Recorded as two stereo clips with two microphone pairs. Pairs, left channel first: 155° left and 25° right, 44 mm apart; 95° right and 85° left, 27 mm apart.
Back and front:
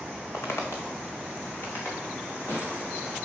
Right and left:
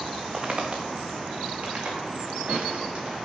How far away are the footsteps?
About 1.4 m.